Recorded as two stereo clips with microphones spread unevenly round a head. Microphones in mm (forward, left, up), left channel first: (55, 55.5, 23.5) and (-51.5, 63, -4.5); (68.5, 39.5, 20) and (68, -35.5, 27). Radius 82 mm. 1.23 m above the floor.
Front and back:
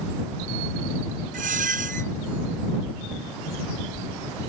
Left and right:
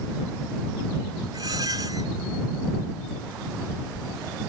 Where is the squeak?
155° right.